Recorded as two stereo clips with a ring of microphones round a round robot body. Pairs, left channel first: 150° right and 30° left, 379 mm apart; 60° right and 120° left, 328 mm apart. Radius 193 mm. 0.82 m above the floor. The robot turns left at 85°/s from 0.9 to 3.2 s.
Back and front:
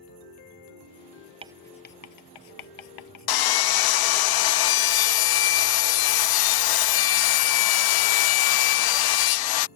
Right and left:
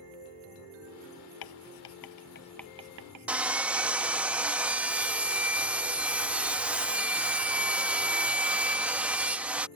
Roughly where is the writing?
Ahead right.